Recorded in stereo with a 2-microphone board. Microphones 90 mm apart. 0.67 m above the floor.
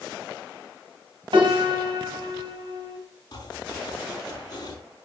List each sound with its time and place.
1.3 s a piano: 70° right (ahead or behind), 3 m
3.3 s chopping: 50° left (ahead or behind), 4 m